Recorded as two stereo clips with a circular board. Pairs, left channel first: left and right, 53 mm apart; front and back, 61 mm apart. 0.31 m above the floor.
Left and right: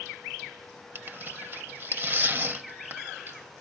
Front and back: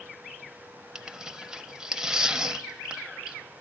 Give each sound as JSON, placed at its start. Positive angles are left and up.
{"t": 0.9, "sound": "tearing paper", "azimuth_deg": -105, "distance_m": 0.7}